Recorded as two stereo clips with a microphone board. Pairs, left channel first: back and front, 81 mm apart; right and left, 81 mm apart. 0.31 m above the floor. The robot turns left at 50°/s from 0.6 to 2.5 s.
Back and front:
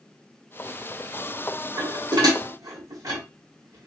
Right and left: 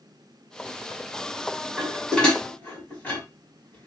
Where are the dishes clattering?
15° left, 1.4 m; by 3.9 s 25° right, 1.4 m.